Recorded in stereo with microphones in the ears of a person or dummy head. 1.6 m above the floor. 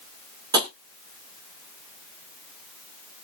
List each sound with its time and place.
0.5 s tapping: 20° right (ahead or behind), 3 m